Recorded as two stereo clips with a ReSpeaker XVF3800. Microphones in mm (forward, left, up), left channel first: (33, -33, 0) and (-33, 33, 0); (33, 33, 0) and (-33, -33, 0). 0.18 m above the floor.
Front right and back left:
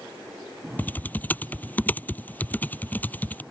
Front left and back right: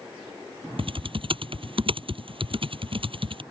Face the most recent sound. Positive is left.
turn(degrees=-115)